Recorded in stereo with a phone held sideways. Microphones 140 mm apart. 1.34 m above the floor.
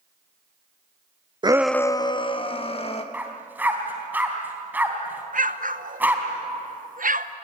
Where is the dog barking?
10° right (ahead or behind), 3 m.